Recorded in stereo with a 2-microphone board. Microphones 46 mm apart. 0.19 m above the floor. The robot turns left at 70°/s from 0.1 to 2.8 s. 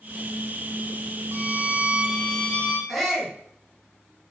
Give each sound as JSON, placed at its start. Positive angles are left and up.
{"t": 1.3, "sound": "a violin", "azimuth_deg": -100, "distance_m": 2.0}
{"t": 2.9, "sound": "a shout", "side_deg": 0, "distance_m": 2.5}